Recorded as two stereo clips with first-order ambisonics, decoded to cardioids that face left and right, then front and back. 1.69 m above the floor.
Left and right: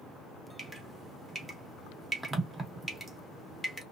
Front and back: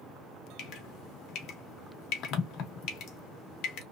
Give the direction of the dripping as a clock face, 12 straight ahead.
12 o'clock.